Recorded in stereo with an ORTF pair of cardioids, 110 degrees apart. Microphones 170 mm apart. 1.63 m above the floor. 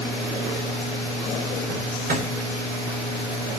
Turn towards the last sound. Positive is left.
turn(degrees=-65)